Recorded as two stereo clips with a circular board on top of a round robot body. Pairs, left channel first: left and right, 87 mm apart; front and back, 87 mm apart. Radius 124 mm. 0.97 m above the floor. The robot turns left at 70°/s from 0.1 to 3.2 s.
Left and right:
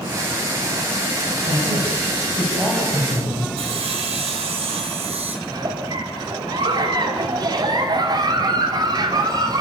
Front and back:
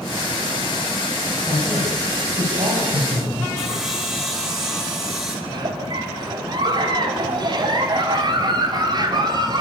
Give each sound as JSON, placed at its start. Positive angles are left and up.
{"t": 1.5, "sound": "a man speaking", "azimuth_deg": -80, "distance_m": 6.0}
{"t": 3.6, "sound": "sawing", "azimuth_deg": -95, "distance_m": 4.5}
{"t": 5.5, "sound": "a giggle", "azimuth_deg": -135, "distance_m": 2.5}